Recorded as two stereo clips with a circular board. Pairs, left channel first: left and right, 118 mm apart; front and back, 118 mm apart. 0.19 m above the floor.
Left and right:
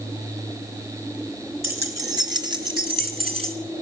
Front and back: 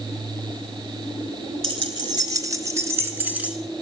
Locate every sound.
1.6 s keys jangling: 150° right, 1.6 m; by 3.5 s 100° right, 1.9 m